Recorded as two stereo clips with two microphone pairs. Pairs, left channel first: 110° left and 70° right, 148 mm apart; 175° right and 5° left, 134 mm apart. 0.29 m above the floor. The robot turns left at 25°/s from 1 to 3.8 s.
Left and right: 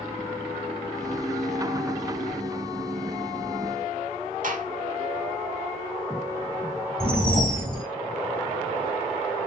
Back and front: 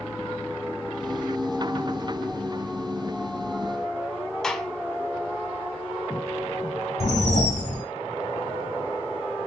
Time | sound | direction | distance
4.4 | a gunshot | 95° right | 0.6 m
7.0 | a whoosh | 165° right | 1.2 m